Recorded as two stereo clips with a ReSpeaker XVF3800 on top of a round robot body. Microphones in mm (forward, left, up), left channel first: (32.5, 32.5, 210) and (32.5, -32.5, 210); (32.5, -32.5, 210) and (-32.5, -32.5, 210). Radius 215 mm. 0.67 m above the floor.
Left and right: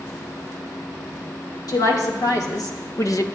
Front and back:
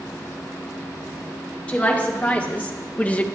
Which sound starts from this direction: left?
A woman speaking, at 1.7 s.